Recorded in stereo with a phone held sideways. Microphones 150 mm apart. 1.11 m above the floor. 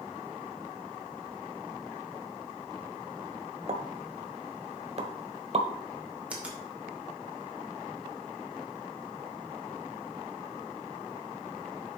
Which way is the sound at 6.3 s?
10° right (ahead or behind).